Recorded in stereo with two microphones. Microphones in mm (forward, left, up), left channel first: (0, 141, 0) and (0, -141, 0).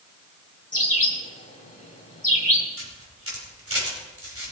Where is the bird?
25° left (ahead or behind), 2 m.